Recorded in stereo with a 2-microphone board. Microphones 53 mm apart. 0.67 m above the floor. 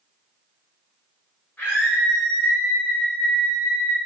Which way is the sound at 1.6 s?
30° left (ahead or behind).